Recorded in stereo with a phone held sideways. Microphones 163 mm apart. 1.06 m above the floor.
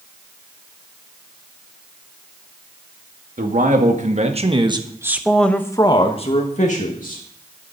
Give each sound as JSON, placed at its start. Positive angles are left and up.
{"t": 3.4, "sound": "a man speaking", "side_deg": -55, "distance_m": 2.0}